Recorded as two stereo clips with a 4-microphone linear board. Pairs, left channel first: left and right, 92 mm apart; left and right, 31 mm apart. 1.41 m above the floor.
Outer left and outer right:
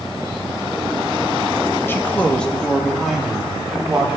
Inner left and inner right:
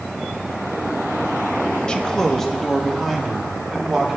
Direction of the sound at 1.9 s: 25° left (ahead or behind).